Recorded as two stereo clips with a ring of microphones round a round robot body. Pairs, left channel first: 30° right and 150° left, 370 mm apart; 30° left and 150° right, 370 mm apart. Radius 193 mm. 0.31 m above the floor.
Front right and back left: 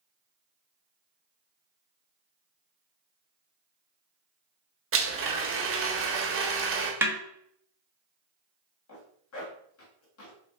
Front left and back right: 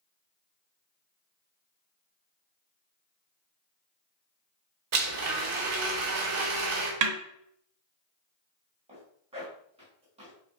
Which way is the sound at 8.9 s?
75° right.